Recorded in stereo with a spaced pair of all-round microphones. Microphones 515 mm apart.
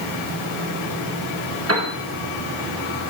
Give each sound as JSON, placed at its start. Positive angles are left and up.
{"t": 1.7, "sound": "a piano", "side_deg": -25, "distance_m": 2.0}